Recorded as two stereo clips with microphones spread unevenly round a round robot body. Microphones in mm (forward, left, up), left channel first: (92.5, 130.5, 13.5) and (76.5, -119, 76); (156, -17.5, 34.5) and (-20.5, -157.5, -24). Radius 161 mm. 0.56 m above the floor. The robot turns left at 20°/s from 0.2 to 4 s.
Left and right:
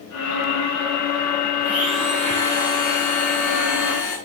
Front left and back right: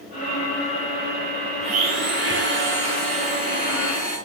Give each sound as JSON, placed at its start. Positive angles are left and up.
{"t": 1.6, "sound": "a blender", "azimuth_deg": 180, "distance_m": 6.5}